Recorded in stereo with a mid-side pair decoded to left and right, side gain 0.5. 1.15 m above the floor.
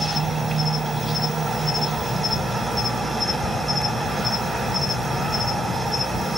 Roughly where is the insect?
Ahead right.